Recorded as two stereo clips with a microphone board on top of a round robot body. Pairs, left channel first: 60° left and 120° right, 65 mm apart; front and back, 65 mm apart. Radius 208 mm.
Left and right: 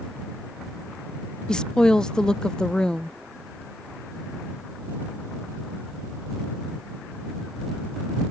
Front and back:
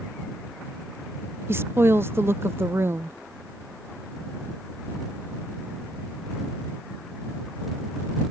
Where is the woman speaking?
135° left.